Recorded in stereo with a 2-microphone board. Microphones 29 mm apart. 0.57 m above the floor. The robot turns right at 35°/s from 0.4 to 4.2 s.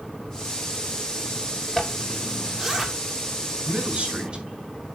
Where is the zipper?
10° left (ahead or behind), 1.7 m; by 2.9 s 20° right (ahead or behind), 1.7 m.